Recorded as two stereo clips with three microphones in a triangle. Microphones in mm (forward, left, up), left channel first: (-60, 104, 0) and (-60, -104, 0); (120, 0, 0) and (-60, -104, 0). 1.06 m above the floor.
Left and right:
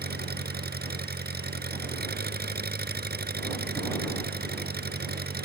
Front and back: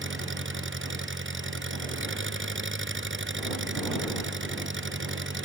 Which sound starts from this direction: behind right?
An engine running, at 0.0 s.